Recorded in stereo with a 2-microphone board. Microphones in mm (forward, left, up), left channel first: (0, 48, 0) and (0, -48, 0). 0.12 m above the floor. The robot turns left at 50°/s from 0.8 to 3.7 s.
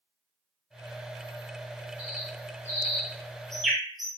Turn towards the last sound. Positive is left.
turn(degrees=0)  # may be behind; listen again after turning